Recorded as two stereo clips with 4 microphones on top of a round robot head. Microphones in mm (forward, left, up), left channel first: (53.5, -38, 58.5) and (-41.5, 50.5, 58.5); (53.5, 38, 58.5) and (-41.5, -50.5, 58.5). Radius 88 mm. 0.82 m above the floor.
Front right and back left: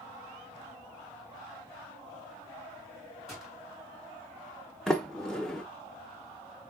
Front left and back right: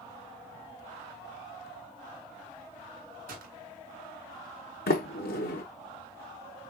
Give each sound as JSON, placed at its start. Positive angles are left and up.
{"t": 3.3, "sound": "a gunshot", "azimuth_deg": -130, "distance_m": 2.0}
{"t": 4.9, "sound": "a sliding door", "azimuth_deg": 45, "distance_m": 1.0}